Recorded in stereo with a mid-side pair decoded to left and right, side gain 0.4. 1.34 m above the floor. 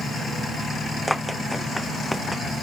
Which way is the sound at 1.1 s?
Straight ahead.